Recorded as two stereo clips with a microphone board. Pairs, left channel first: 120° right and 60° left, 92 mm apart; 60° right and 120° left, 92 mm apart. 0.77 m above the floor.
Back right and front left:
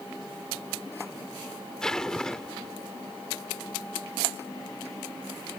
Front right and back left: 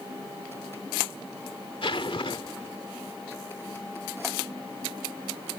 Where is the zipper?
35° right.